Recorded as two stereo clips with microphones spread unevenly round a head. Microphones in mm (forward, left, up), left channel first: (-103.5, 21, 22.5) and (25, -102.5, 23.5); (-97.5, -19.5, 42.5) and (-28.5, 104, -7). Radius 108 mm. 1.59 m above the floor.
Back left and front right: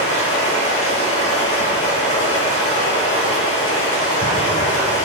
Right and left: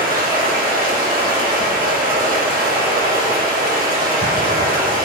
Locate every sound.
0.0 s running water: 80° left, 6 m